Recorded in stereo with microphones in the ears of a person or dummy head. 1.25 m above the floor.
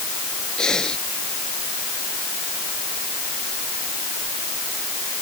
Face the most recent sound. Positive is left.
turn(degrees=5)  # may be behind; listen again after turning